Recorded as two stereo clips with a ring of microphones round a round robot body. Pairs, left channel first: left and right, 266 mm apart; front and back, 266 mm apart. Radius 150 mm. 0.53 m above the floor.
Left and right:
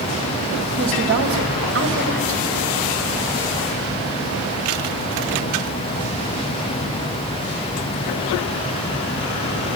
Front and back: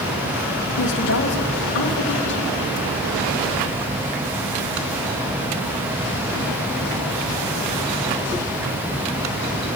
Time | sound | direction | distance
0.8 | a woman speaking | 50° right | 2.5 m